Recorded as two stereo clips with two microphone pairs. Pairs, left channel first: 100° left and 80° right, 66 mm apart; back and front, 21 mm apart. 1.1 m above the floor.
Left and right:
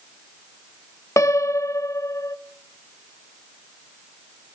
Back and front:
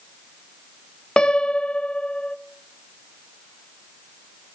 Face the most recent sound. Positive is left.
turn(degrees=140)